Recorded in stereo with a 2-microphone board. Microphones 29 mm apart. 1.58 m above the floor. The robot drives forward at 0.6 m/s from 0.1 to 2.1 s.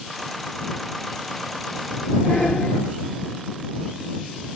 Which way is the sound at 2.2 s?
55° left (ahead or behind).